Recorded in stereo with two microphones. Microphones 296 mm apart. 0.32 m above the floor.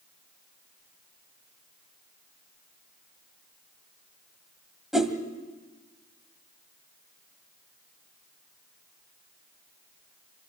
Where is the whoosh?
Centre (ahead or behind), 1.5 m.